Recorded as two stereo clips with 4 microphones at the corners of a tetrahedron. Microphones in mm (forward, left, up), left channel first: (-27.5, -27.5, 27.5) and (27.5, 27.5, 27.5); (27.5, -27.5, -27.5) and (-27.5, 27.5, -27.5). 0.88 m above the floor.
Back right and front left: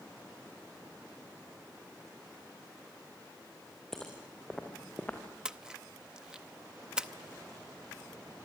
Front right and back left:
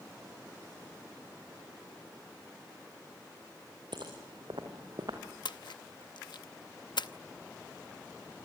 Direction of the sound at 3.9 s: 140° left.